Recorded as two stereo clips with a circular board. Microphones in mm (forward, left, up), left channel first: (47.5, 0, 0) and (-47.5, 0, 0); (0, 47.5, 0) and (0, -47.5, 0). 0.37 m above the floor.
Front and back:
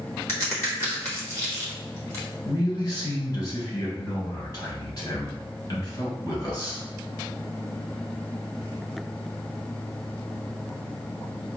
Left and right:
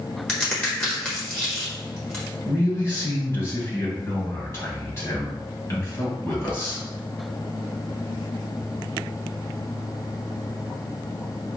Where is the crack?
25° left, 1.2 m.